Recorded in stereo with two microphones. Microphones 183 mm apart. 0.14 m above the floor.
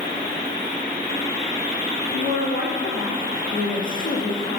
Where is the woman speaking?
50° left (ahead or behind), 3 m.